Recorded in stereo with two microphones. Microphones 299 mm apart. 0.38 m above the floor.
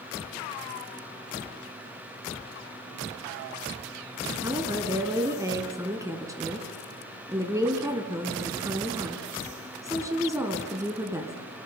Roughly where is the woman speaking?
Centre.